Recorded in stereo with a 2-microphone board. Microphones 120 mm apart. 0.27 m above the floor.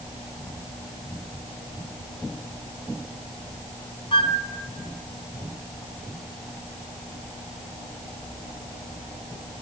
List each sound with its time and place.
4.1 s a flute: 45° left (ahead or behind), 0.5 m